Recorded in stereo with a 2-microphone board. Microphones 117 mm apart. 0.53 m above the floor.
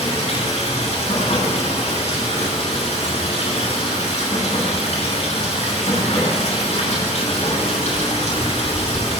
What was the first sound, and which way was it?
Running water, 75° left (ahead or behind).